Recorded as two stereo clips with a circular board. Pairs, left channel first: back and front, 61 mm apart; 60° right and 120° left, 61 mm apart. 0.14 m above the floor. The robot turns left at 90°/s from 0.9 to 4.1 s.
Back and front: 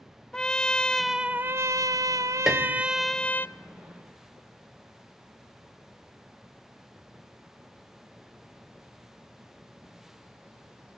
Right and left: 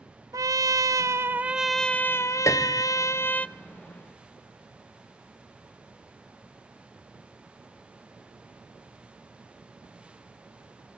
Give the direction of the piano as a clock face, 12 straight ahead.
3 o'clock.